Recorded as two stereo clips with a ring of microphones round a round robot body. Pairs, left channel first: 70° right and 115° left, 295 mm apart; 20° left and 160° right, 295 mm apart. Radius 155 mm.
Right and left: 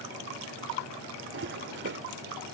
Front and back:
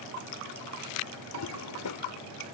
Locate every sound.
1.3 s a toilet flushing: 60° left